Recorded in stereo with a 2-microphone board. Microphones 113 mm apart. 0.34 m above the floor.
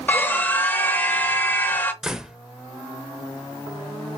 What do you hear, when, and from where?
0.1 s a scream: 15° left (ahead or behind), 0.8 m
2.0 s a door slam: 5° right (ahead or behind), 0.6 m